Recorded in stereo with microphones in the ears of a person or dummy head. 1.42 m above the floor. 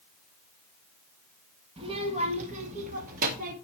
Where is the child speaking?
30° right (ahead or behind), 1.7 m; by 3.5 s 45° right (ahead or behind), 2.5 m.